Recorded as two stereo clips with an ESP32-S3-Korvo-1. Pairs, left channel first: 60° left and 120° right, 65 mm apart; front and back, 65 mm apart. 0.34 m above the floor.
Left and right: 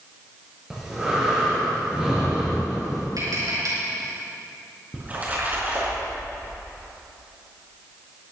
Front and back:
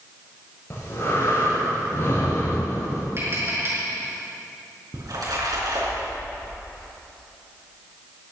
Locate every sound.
0.7 s breathing: 40° right, 5.5 m
3.2 s tapping: 130° right, 5 m
4.9 s a splash: 175° left, 4.5 m